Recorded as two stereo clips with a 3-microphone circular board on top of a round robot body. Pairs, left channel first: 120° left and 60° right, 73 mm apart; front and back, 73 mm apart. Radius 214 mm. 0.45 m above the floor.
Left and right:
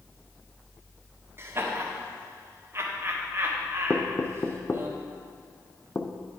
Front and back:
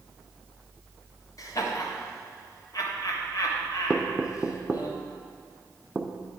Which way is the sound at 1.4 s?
15° right.